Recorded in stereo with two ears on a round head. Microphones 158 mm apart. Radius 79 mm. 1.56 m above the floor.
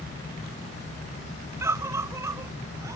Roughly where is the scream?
Centre.